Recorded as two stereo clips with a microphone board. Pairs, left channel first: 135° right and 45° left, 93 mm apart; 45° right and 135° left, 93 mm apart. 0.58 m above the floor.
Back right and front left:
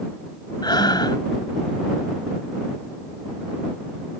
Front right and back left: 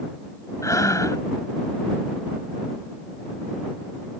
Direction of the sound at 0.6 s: 95° right.